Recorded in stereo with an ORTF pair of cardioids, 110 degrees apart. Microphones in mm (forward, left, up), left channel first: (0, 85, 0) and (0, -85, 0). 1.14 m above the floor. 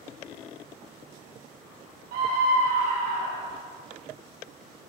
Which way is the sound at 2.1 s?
65° right.